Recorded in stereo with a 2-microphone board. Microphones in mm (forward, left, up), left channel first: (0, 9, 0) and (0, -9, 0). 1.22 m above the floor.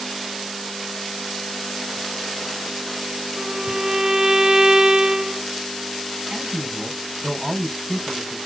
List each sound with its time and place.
3.4 s a violin: 40° right (ahead or behind), 0.6 m
6.3 s a man speaking: 35° right (ahead or behind), 4 m